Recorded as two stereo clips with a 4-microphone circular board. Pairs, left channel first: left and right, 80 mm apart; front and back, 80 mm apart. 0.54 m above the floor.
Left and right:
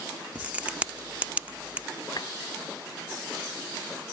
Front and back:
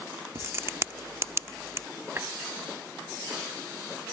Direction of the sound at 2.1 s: 120° left.